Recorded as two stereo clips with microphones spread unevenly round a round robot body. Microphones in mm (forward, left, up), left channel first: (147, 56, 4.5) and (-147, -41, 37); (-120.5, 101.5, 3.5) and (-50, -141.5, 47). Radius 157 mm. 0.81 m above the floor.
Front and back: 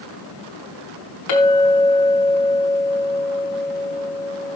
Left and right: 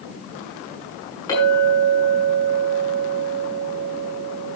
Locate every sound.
1.3 s a clink: 25° left, 6.5 m